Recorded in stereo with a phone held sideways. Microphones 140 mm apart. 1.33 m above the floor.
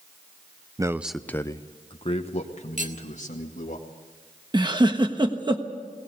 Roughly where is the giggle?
Right.